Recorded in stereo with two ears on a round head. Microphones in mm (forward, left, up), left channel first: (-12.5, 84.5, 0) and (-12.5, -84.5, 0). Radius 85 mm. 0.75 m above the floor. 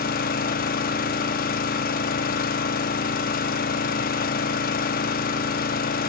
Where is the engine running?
50° left (ahead or behind), 0.9 m.